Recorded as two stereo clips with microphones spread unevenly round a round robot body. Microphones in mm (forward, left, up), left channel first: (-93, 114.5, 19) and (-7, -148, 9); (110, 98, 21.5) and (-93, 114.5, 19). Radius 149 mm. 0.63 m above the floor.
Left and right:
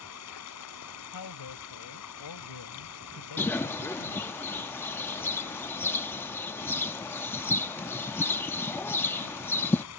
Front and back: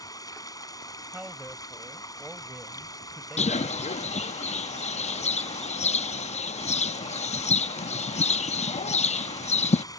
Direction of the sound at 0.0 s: 70° left.